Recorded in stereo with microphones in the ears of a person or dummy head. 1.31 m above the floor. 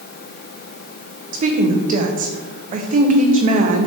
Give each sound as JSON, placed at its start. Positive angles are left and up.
{"t": 1.3, "sound": "a woman speaking", "side_deg": -40, "distance_m": 0.6}